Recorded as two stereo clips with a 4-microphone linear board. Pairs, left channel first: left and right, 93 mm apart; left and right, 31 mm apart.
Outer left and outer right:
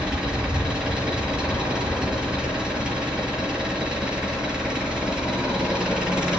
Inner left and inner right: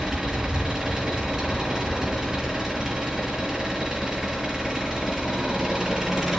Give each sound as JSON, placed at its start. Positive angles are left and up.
{"t": 0.0, "sound": "an engine running", "side_deg": -10, "distance_m": 5.5}